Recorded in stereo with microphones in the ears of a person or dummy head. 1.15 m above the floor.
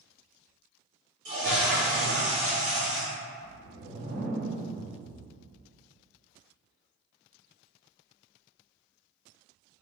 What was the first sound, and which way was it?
A toilet flushing, 65° right (ahead or behind).